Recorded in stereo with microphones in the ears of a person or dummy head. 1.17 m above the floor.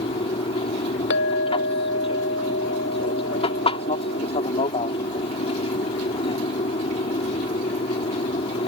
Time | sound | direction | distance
0.0 | an aircraft | 30° left (ahead or behind) | ?
1.1 | a clink | 75° left (ahead or behind) | ?